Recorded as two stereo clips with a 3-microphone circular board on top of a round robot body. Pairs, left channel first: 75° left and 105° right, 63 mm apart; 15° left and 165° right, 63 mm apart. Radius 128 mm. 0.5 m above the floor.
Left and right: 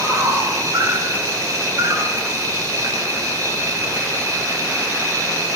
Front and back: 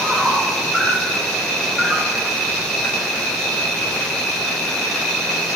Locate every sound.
0.0 s an insect: 70° right, 3 m